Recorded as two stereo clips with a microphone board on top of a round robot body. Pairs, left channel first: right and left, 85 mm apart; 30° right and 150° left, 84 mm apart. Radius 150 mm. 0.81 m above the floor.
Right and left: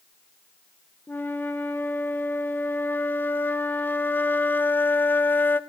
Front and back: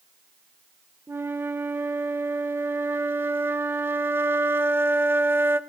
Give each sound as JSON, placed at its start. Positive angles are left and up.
{"t": 1.1, "sound": "a flute", "azimuth_deg": -150, "distance_m": 0.6}